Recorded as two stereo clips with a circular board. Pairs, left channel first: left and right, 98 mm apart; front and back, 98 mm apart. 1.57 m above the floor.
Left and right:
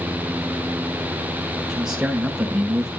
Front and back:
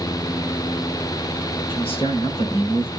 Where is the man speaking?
10° right, 5.5 m.